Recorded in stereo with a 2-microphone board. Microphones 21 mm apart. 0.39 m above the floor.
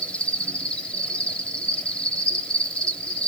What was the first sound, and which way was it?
An insect, 60° left (ahead or behind).